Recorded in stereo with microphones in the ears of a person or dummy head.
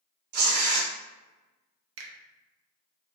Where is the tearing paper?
60° right (ahead or behind), 1.5 m.